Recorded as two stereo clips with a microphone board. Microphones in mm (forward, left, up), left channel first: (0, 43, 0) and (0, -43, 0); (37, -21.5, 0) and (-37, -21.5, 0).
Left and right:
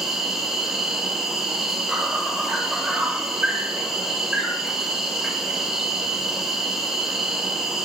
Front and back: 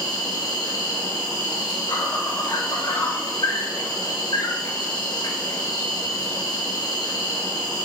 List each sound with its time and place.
0.0 s an insect: 5° right, 2.5 m